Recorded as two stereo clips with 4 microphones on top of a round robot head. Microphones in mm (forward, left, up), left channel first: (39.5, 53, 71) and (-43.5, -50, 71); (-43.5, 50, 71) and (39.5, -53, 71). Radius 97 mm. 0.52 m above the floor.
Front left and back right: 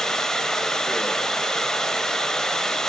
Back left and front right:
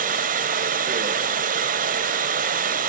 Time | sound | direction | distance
0.0 | running water | 35° right | 1.5 m